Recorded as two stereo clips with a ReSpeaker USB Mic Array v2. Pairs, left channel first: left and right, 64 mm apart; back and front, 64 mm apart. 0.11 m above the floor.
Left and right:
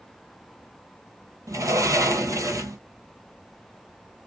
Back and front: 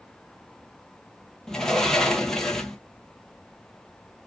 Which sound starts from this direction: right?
A sliding door, at 1.5 s.